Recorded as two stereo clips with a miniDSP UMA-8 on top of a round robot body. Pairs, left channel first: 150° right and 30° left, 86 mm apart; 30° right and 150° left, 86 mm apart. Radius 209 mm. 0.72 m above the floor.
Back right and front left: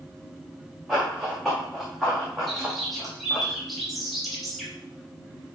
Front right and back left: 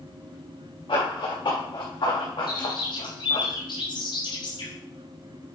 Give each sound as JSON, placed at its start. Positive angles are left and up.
{"t": 0.9, "sound": "running footsteps", "azimuth_deg": -60, "distance_m": 5.0}
{"t": 2.5, "sound": "a bird", "azimuth_deg": -60, "distance_m": 4.0}